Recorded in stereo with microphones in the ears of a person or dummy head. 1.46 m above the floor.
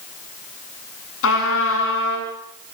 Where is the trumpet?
75° left (ahead or behind), 8.5 m.